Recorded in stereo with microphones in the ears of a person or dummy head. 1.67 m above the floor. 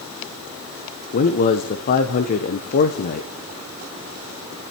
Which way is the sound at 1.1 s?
50° left (ahead or behind).